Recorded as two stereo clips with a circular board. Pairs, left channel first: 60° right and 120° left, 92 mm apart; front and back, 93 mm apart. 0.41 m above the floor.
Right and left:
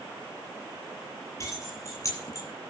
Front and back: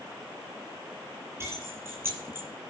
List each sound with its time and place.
1.4 s keys jangling: 115° right, 7 m; by 2.5 s 110° right, 8 m